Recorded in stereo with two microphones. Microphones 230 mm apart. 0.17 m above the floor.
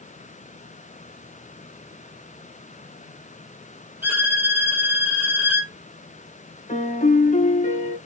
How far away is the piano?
About 0.5 m.